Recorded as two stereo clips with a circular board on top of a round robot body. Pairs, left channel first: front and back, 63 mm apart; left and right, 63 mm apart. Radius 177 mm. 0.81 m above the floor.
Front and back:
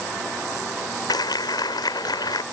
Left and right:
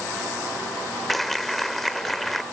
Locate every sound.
1.1 s a clap: straight ahead